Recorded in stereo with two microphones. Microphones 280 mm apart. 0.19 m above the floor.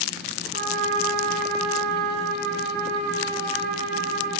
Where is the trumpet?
25° right (ahead or behind), 2.5 m.